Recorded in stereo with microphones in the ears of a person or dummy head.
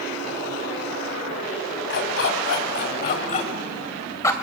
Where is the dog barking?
65° left (ahead or behind), 3 m; by 4.3 s 15° left (ahead or behind), 2.0 m.